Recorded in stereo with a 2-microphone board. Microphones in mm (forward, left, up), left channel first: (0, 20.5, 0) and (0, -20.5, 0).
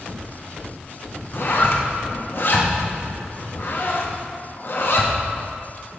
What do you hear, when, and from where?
1.3 s a zipper: 55° left (ahead or behind), 0.7 m